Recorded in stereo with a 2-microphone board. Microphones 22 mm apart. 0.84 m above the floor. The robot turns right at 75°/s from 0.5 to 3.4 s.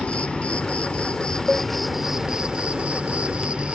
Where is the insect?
75° left; by 3.7 s 65° right.